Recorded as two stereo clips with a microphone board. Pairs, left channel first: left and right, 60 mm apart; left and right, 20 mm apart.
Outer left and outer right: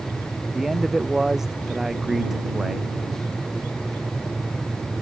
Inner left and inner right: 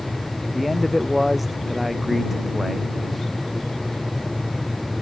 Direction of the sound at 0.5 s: 5° right (ahead or behind).